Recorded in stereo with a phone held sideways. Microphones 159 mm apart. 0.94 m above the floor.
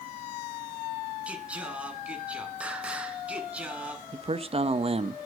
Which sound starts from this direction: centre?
Singing, at 1.3 s.